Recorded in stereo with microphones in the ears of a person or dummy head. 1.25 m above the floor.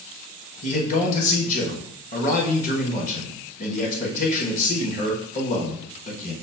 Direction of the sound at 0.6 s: 45° left (ahead or behind).